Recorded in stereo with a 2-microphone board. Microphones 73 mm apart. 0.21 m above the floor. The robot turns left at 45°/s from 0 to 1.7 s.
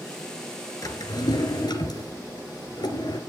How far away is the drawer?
About 2 m.